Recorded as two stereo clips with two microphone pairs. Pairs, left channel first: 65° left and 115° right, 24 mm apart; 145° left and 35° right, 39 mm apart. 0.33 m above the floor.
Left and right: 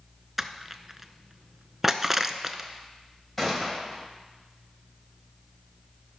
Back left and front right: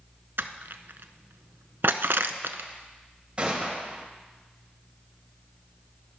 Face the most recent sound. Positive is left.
turn(degrees=-5)